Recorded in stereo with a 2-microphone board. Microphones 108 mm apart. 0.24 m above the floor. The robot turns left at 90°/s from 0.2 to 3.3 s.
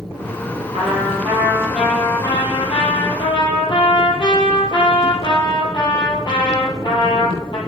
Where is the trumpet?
80° right, 5 m; by 7.6 s 50° left, 5 m.